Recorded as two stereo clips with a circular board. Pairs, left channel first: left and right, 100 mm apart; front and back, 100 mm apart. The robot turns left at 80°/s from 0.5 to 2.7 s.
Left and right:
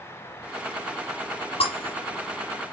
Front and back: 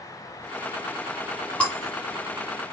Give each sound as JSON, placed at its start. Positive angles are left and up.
{"t": 1.6, "sound": "breaking glass", "azimuth_deg": 80, "distance_m": 3.0}